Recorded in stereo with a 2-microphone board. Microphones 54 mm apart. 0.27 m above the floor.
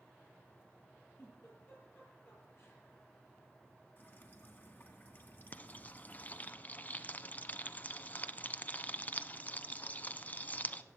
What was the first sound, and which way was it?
A giggle, 50° left (ahead or behind).